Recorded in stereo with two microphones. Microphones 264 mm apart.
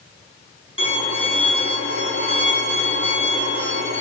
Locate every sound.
0.8 s a violin: 55° right (ahead or behind), 1.6 m